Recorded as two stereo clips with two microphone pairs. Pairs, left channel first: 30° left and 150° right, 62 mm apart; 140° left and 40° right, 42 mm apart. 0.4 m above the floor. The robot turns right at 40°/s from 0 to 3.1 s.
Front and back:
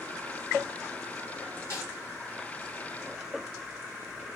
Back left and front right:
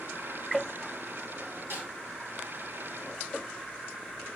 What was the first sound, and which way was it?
A snare drum, 15° right.